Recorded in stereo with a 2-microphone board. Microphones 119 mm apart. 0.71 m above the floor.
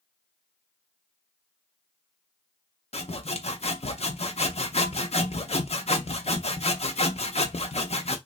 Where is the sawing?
60° left (ahead or behind), 0.7 m.